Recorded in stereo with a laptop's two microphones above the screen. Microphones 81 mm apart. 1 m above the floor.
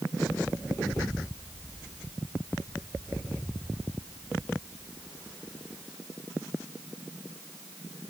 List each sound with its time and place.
Only background noise.